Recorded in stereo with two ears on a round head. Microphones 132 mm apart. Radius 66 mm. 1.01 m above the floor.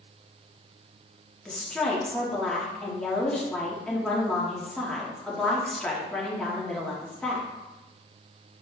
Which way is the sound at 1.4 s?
5° left (ahead or behind).